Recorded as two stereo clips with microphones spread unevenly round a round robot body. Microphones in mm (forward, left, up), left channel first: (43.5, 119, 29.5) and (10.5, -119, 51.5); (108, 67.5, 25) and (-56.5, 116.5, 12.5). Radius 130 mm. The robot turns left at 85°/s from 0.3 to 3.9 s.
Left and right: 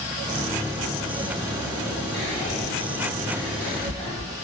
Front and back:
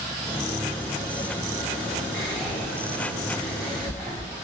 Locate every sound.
2.1 s whispering: 60° left, 1.6 m; by 4.3 s 90° right, 1.6 m